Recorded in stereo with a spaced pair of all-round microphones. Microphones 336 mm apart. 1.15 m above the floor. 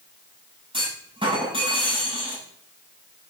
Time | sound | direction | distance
0.7 | a clunk | 15° right (ahead or behind) | 6.5 m